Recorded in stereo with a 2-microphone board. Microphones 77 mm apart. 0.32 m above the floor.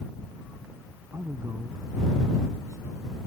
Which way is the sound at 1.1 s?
40° right (ahead or behind).